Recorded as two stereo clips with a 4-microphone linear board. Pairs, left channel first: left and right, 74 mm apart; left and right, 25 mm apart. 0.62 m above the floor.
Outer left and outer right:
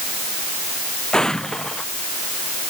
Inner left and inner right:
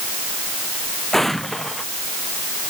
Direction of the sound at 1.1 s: 10° left (ahead or behind).